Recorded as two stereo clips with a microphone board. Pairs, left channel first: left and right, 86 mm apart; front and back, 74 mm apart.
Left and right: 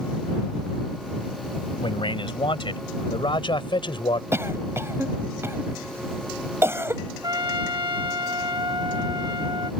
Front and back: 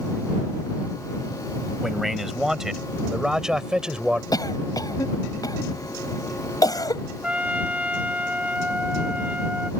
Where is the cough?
30° right.